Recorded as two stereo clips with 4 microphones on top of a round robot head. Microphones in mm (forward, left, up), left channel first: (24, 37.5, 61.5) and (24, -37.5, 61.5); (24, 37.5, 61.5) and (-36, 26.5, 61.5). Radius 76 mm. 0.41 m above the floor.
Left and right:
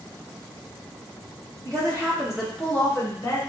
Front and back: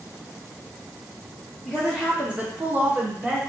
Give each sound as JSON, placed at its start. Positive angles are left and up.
{"t": 1.6, "sound": "a woman speaking", "azimuth_deg": -80, "distance_m": 1.0}